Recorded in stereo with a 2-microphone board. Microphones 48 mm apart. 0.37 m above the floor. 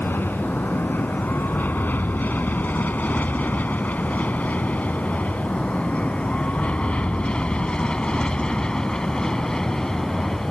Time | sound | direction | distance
0.0 | an aircraft | 50° left (ahead or behind) | ?